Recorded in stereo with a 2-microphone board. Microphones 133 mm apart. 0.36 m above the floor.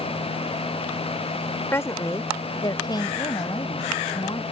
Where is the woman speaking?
20° left (ahead or behind); by 4.4 s 35° left (ahead or behind).